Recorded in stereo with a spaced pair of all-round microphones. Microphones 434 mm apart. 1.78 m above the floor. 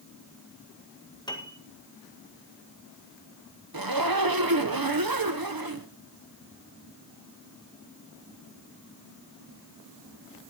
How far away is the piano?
About 1.8 m.